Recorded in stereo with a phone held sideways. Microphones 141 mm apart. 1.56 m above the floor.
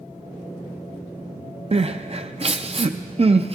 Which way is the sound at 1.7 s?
45° right (ahead or behind).